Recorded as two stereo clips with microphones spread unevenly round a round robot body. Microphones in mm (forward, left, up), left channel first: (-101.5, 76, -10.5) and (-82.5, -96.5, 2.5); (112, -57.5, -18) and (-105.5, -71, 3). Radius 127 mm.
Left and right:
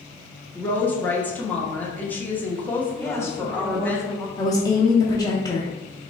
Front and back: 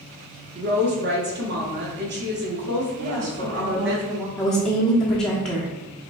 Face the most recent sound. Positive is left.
turn(degrees=75)